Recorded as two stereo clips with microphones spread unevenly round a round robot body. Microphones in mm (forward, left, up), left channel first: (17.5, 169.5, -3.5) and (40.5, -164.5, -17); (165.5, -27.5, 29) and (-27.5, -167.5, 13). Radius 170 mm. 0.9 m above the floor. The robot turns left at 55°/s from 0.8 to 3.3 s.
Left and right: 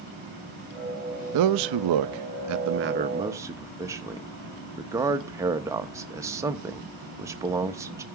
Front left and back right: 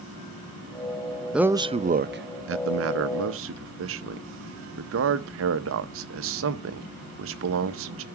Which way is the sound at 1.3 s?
60° right.